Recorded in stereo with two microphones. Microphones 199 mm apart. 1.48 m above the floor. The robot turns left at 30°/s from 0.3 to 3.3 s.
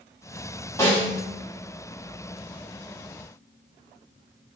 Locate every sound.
0.8 s a snare drum: 15° left (ahead or behind), 1.5 m; by 1.2 s centre (ahead or behind), 1.5 m